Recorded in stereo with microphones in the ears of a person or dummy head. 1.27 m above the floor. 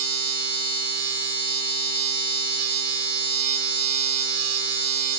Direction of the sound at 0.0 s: 75° right (ahead or behind).